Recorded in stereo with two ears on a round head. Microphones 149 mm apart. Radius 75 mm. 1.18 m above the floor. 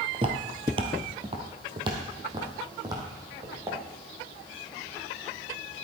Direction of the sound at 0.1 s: 35° right (ahead or behind).